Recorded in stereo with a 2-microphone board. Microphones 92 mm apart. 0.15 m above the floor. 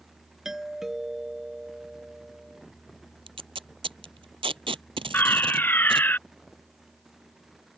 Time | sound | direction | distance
0.5 | a doorbell | 5° right (ahead or behind) | ?
3.3 | tape being pulled | 75° right (ahead or behind) | ?
5.1 | a fire alarm | 20° left (ahead or behind) | ?